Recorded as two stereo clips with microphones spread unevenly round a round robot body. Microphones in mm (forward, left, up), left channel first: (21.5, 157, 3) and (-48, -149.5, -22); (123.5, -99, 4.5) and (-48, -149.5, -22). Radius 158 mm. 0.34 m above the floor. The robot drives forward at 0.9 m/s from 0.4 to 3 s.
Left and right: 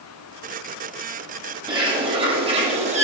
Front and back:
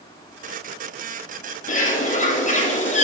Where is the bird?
25° right, 6 m; by 3.0 s 35° right, 5 m.